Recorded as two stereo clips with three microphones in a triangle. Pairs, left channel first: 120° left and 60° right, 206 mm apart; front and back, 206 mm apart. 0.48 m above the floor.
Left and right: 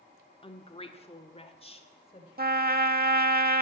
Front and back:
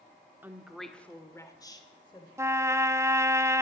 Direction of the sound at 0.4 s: 110° left.